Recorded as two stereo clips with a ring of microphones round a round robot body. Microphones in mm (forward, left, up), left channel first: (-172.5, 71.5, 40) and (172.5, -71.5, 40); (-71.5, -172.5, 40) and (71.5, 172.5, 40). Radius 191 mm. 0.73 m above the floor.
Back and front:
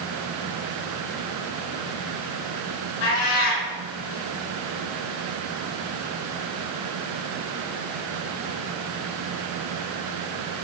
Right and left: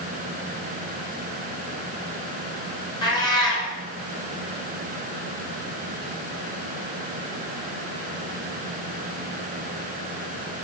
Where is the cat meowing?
170° left, 4.5 m.